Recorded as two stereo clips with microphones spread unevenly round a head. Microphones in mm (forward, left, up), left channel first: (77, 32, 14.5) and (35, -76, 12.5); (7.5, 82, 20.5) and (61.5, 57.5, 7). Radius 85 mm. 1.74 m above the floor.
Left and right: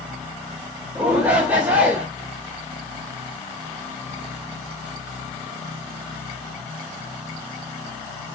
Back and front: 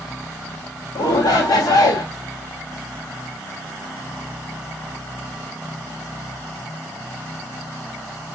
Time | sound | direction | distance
0.9 | a shout | 170° left | 1.1 m